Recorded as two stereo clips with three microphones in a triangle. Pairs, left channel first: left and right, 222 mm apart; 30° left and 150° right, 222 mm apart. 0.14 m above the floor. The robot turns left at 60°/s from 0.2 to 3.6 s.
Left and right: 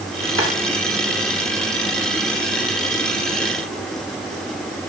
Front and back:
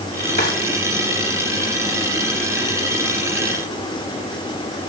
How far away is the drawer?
About 6.5 m.